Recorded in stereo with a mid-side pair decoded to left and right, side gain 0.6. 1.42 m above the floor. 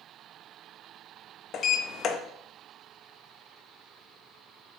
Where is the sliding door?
45° left, 0.7 m.